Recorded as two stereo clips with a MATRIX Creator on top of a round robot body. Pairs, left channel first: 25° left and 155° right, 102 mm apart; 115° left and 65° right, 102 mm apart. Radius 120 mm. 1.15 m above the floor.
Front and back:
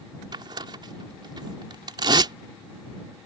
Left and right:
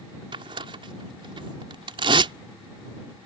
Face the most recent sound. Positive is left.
turn(degrees=-110)